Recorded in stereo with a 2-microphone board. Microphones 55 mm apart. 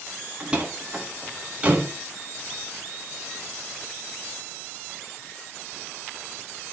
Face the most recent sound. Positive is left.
turn(degrees=-25)  # may be behind; listen again after turning